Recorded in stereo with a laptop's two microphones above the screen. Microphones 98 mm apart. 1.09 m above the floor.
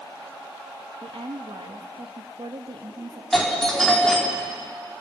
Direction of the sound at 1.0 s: 75° right (ahead or behind).